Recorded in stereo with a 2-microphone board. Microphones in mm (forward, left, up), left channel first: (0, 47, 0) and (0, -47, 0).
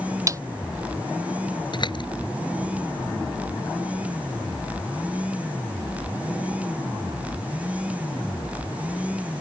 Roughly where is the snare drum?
Right.